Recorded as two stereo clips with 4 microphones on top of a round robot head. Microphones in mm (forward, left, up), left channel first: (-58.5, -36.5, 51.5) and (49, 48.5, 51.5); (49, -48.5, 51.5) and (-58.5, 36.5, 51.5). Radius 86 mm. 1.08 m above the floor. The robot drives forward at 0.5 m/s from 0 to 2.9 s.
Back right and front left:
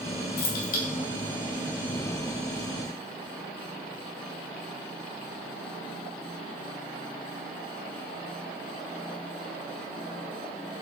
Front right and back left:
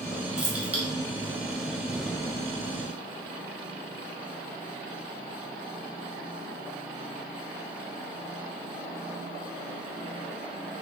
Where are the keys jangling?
135° right, 1.2 m; by 0.8 s 140° right, 1.3 m.